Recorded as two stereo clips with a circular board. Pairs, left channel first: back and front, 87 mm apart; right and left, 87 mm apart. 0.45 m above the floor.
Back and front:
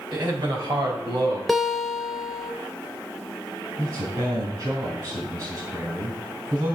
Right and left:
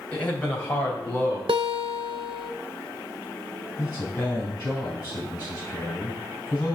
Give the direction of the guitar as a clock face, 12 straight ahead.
9 o'clock.